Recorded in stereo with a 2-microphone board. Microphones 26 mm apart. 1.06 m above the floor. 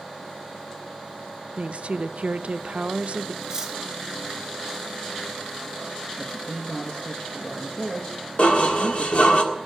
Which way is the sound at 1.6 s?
55° right (ahead or behind).